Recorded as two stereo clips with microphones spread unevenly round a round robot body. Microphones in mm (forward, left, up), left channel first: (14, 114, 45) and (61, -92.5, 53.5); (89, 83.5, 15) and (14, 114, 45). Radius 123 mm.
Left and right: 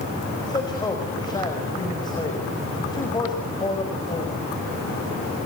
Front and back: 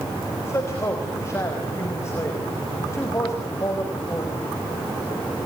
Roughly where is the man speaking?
Ahead left.